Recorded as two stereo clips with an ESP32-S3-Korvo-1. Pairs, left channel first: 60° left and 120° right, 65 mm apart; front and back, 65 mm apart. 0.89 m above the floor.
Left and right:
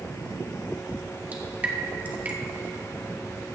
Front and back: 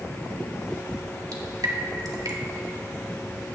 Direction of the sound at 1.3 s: 175° left.